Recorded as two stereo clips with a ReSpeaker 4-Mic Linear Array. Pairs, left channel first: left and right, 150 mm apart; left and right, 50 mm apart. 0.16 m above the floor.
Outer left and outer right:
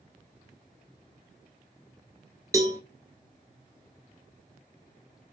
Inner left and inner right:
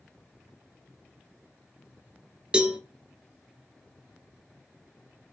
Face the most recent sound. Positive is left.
turn(degrees=-20)  # may be behind; listen again after turning